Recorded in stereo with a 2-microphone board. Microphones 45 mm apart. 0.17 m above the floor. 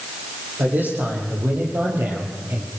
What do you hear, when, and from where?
0.6 s a man speaking: 45° right (ahead or behind), 8.5 m; by 2.7 s 40° right (ahead or behind), 5.5 m